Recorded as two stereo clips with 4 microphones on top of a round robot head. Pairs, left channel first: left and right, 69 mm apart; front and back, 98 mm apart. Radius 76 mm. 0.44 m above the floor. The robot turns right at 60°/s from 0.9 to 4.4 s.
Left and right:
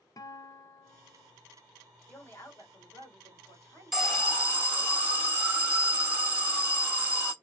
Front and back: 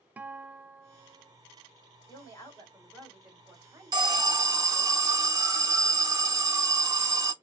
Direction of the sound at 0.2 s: 110° left.